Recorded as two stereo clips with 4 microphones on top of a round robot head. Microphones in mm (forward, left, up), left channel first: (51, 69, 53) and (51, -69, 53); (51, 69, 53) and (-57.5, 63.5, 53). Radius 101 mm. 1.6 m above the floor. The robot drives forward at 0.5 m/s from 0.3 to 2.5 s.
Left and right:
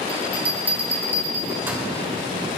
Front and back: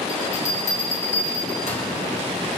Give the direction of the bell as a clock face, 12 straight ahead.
12 o'clock.